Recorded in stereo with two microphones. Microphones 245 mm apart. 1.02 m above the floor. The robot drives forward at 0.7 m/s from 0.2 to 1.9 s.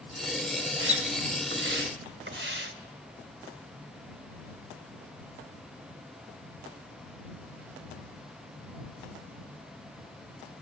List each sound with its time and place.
0.8 s a splash: 55° right (ahead or behind), 1.2 m; by 2.7 s 50° right (ahead or behind), 1.2 m